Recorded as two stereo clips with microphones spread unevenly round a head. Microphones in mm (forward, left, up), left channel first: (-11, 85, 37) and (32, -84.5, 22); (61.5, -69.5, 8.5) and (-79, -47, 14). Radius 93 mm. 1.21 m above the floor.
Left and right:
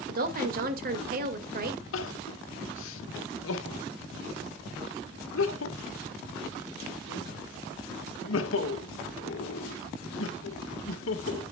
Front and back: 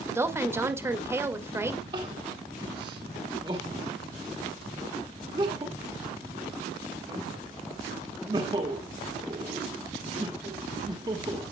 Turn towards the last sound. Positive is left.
turn(degrees=105)